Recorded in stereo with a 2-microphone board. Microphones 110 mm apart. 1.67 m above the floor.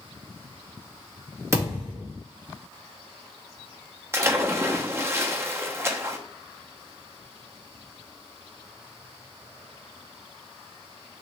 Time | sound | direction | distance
1.5 | a thud | 25° right (ahead or behind) | 1.8 m
4.1 | a splash | 20° right (ahead or behind) | 0.6 m